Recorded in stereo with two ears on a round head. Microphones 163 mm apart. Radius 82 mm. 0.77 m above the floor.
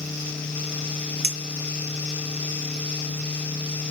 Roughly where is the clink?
Right.